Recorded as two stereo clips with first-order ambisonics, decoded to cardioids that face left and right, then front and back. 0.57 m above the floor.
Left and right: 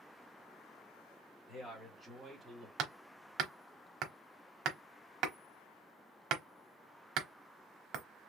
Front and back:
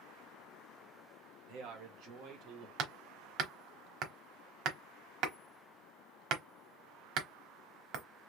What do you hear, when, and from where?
1.5 s a man speaking: 170° left, 1.9 m; by 2.7 s 170° right, 1.4 m
2.8 s hammering: 140° right, 0.9 m